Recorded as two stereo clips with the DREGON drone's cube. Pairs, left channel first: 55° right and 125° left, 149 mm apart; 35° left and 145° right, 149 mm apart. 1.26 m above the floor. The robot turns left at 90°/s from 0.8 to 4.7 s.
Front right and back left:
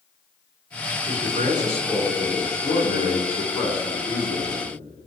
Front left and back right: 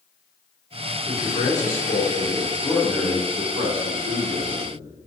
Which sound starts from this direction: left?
A man speaking, at 1.1 s.